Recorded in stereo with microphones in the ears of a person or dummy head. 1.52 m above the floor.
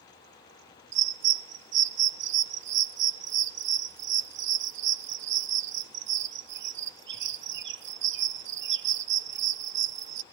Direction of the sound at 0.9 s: 55° right (ahead or behind).